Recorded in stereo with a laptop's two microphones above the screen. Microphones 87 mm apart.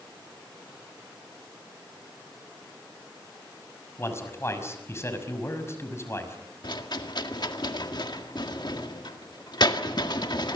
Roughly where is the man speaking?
Left.